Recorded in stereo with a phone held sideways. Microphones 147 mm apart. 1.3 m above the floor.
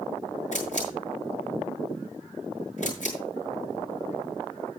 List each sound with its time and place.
0.5 s a camera shutter: 55° left (ahead or behind), 6.5 m